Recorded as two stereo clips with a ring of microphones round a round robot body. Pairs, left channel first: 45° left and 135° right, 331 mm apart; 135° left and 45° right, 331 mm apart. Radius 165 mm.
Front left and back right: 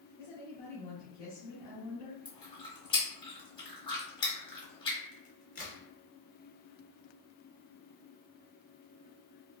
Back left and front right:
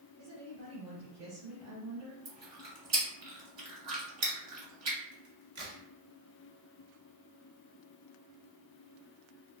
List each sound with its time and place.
0.2 s a woman speaking: 10° right, 1.9 m
2.2 s chewing: 30° right, 1.6 m
5.1 s a crack: 20° right, 2.0 m